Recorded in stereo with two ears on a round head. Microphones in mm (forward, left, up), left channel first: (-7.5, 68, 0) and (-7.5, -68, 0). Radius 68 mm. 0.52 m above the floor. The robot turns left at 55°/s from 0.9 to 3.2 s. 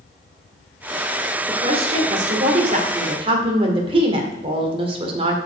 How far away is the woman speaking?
About 2.0 m.